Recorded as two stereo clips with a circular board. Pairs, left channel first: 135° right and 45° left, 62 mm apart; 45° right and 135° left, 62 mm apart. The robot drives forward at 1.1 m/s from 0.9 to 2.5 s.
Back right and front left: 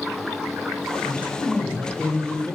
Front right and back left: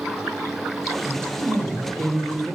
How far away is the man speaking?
About 0.9 m.